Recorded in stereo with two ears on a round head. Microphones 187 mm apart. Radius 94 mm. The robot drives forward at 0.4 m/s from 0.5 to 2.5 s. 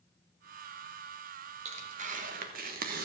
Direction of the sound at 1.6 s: 35° right (ahead or behind).